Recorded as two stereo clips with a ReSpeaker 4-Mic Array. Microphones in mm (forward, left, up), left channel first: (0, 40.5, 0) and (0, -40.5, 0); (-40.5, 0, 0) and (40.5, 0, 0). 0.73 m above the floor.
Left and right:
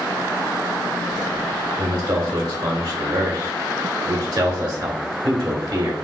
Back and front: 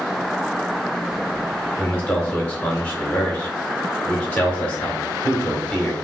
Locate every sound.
1.8 s a man speaking: 110° right, 1.9 m